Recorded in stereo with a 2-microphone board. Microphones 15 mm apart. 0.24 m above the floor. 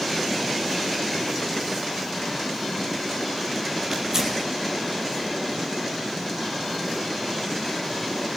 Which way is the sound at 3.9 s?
35° right (ahead or behind).